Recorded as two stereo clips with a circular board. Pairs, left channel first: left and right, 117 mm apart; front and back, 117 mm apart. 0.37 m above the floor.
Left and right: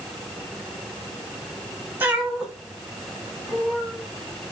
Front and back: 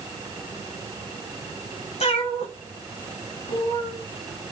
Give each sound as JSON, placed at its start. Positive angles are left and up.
{"t": 2.0, "sound": "a cat meowing", "azimuth_deg": -15, "distance_m": 1.1}